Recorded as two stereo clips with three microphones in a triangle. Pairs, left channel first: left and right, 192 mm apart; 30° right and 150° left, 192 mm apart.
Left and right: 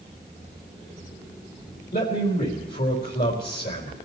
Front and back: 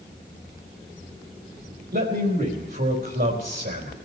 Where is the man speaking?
115° left, 4.5 m.